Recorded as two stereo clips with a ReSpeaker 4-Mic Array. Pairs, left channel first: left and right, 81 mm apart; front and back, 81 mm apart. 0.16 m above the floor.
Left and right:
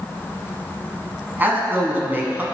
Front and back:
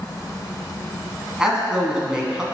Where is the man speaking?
110° right, 1.2 m.